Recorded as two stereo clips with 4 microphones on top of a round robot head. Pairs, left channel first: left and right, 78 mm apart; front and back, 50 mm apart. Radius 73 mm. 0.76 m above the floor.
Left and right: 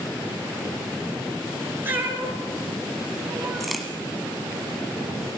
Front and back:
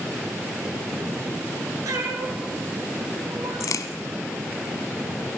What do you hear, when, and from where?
1.9 s a cat meowing: 155° right, 5 m; by 3.8 s 160° right, 2.5 m
3.6 s a crack: straight ahead, 1.1 m